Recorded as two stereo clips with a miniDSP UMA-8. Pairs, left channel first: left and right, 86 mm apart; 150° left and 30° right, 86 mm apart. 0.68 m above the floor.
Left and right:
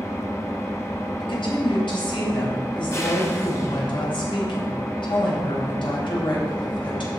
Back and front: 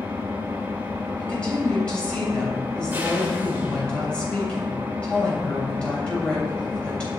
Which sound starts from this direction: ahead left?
An engine running, at 0.0 s.